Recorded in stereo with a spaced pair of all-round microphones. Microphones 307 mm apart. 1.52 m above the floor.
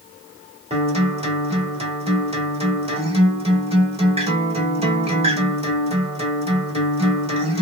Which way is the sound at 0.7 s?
20° right (ahead or behind).